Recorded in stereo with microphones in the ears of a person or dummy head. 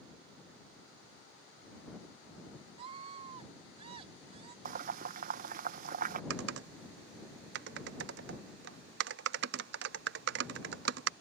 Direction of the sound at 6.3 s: 65° right (ahead or behind).